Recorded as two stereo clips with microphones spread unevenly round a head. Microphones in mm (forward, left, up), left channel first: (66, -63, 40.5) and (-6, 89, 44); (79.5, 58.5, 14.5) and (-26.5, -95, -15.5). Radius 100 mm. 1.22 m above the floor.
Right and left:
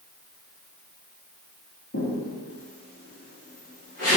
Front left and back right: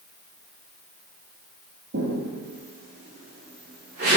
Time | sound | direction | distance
1.9 | footsteps | 90° right | 3 m